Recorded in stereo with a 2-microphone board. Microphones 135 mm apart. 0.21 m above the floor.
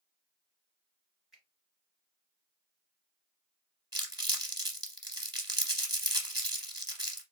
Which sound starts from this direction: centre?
A finger snap, at 1.3 s.